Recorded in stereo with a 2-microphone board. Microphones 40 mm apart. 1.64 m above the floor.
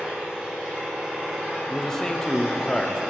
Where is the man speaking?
10° left (ahead or behind), 0.6 m.